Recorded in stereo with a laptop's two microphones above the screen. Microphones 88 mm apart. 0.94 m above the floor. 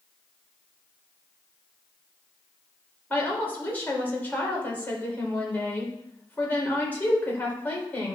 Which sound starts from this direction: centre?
A woman speaking, at 3.1 s.